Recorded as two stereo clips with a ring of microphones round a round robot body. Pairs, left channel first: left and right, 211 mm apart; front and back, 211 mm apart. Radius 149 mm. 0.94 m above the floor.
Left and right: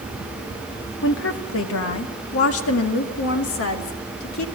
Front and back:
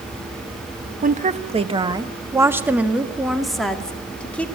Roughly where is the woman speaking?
Behind left.